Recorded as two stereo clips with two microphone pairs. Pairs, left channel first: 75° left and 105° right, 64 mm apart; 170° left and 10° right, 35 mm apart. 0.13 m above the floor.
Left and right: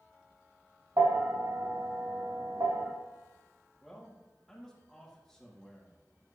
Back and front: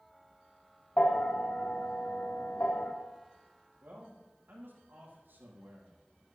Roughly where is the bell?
Behind right.